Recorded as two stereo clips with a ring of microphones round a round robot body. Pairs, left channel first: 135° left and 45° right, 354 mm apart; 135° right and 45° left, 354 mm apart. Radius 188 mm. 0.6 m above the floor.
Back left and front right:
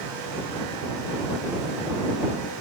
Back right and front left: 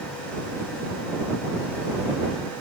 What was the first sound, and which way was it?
Only background noise.